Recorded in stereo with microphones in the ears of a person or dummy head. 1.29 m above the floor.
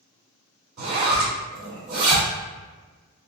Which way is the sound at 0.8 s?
45° right (ahead or behind).